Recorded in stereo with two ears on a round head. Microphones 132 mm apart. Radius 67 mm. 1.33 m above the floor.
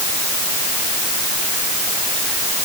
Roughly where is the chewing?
I don't hear chewing.